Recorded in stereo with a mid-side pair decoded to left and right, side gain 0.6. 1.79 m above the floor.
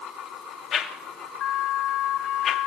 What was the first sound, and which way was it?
A whoosh, 45° left.